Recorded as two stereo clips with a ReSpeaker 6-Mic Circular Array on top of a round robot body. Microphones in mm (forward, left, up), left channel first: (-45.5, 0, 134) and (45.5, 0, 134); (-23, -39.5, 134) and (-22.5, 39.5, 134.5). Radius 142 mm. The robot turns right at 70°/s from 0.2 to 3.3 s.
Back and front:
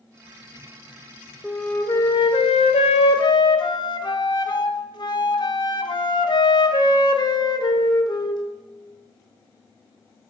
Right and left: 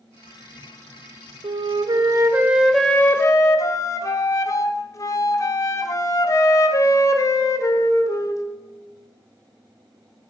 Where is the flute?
90° left, 0.6 m; by 8.4 s 140° right, 0.6 m.